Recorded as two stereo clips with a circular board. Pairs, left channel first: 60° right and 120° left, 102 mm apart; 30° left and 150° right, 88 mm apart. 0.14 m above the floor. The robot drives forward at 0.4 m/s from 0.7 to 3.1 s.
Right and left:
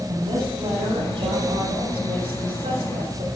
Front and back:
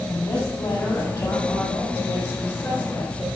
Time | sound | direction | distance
0.1 | a woman speaking | 80° left | 5.5 m